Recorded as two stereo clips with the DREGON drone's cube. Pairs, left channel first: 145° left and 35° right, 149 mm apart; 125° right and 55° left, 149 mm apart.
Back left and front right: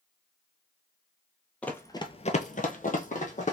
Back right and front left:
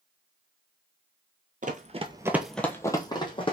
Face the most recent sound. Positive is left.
turn(degrees=180)